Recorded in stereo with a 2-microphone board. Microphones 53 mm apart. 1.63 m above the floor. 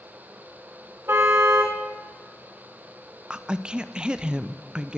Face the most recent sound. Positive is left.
turn(degrees=-15)  # may be behind; listen again after turning